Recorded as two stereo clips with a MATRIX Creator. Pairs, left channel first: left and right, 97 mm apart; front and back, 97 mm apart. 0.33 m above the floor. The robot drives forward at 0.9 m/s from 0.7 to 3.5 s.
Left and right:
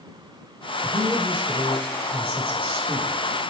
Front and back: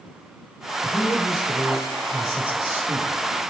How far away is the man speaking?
About 4.5 m.